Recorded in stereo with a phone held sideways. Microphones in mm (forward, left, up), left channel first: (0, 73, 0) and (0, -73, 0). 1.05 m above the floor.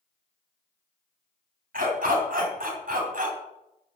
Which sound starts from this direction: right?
A dog barking, at 1.7 s.